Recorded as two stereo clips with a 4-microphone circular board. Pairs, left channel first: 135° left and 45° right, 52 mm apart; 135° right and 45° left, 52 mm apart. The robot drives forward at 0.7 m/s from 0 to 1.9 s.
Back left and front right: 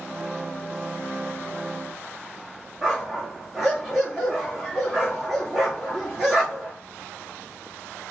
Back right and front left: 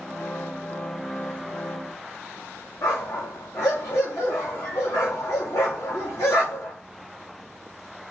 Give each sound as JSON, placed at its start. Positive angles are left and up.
{"t": 2.8, "sound": "a dog barking", "azimuth_deg": -130, "distance_m": 2.5}